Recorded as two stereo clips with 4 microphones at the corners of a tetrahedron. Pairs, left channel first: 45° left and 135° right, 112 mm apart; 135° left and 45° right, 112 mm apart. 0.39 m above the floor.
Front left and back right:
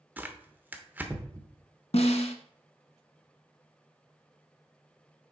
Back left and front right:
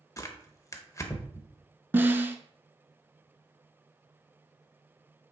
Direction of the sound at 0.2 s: 165° left.